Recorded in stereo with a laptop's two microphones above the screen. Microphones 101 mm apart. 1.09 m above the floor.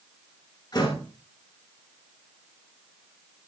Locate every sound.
0.7 s a door slam: 45° left (ahead or behind), 8 m